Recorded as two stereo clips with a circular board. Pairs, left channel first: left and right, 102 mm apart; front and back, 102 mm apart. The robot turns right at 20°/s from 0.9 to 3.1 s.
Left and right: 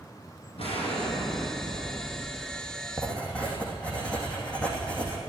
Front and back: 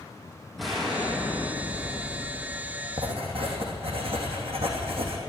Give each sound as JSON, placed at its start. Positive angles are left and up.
{"t": 0.6, "sound": "an explosion", "azimuth_deg": 90, "distance_m": 4.0}
{"t": 3.0, "sound": "writing", "azimuth_deg": 165, "distance_m": 2.5}